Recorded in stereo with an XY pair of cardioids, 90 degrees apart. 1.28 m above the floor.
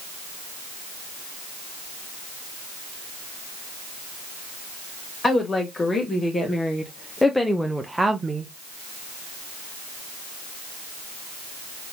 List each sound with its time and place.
5.2 s a woman speaking: 35° left, 1.7 m; by 8.5 s 60° right, 0.5 m